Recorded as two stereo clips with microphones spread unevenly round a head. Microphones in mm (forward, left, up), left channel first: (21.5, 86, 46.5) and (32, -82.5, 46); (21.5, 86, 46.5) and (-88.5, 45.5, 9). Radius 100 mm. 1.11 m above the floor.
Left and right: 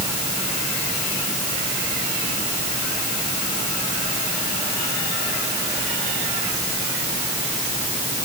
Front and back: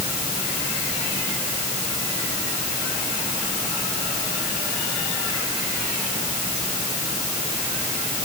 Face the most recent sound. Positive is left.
No sound to turn to.